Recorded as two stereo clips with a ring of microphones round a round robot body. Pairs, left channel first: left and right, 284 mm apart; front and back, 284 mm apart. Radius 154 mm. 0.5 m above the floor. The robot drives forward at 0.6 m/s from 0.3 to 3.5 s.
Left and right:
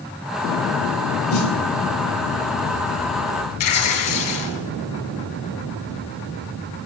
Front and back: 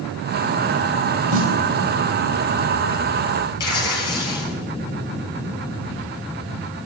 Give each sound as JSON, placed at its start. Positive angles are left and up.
{"t": 1.3, "sound": "a snare drum", "azimuth_deg": 120, "distance_m": 1.5}
{"t": 3.6, "sound": "tearing paper", "azimuth_deg": 75, "distance_m": 3.0}